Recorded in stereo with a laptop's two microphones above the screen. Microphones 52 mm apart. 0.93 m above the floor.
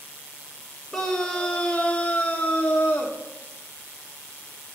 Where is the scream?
10° left (ahead or behind), 1.1 m; by 3.2 s 25° left (ahead or behind), 1.1 m.